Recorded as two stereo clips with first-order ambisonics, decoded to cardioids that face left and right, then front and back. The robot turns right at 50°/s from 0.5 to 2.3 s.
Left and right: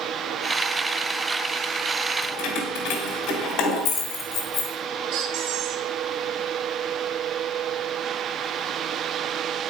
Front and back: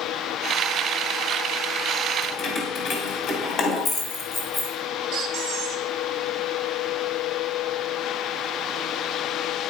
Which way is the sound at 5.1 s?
125° right.